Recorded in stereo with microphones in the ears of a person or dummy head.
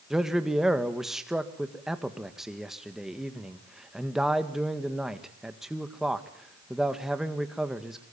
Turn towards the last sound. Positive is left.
turn(degrees=0)  # may be behind; listen again after turning